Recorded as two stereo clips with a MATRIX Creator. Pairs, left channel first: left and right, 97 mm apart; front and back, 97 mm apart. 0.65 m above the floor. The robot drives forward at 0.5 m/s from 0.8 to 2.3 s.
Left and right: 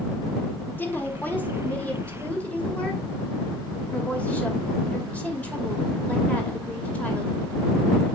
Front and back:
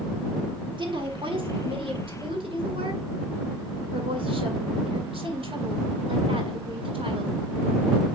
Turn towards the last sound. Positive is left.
turn(degrees=165)